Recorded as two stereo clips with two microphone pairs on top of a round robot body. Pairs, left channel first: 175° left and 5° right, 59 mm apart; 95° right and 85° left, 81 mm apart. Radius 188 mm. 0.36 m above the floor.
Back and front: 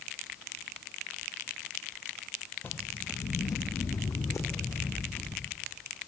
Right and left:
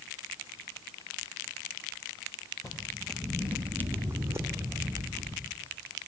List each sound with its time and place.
2.6 s footsteps: 140° right, 0.8 m; by 5.5 s 135° left, 3.5 m